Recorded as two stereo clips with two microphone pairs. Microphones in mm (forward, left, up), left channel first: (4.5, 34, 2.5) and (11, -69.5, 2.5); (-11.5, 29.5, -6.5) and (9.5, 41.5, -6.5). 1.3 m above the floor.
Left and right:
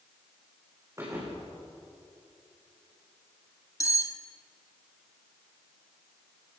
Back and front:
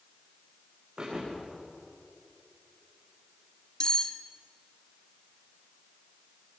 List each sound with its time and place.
1.0 s a thud: 25° right, 8.5 m
3.8 s cutlery clinking: 150° left, 1.1 m